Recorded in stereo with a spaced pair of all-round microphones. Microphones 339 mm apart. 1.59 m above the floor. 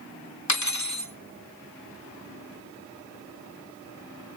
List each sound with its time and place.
0.5 s cutlery clinking: 55° left (ahead or behind), 1.3 m